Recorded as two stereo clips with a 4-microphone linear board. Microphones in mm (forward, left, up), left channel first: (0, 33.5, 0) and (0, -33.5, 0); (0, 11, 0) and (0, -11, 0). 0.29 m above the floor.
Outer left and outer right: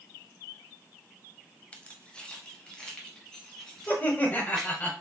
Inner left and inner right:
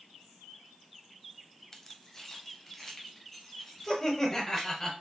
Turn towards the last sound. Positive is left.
turn(degrees=25)  # may be behind; listen again after turning